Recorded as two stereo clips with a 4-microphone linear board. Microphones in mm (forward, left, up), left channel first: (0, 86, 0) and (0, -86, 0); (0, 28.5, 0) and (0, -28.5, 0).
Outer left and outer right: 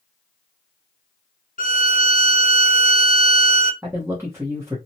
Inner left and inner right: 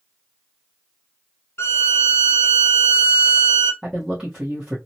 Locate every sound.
1.6 s a violin: 55° left (ahead or behind), 0.5 m
3.8 s a man speaking: 15° right (ahead or behind), 0.9 m